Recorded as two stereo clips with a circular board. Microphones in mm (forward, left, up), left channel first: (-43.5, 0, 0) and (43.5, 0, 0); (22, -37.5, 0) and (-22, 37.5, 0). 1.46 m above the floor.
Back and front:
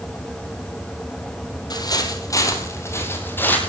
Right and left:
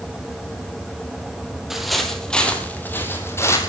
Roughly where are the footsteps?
Behind right.